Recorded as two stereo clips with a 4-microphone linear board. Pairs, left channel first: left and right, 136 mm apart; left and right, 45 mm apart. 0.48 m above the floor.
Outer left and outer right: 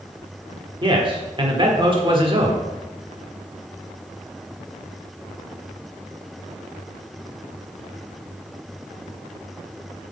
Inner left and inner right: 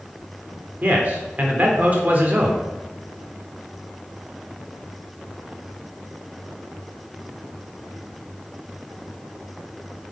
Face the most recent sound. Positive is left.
turn(degrees=-40)  # may be behind; listen again after turning